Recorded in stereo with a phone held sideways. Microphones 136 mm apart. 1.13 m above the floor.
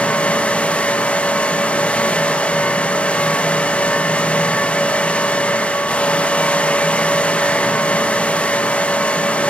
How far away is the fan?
About 1.4 m.